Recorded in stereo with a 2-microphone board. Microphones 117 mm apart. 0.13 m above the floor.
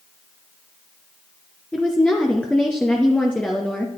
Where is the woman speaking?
5° left (ahead or behind), 1.7 m.